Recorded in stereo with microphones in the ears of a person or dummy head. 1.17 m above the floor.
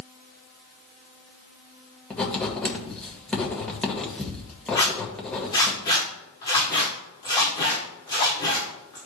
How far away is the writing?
About 1.9 m.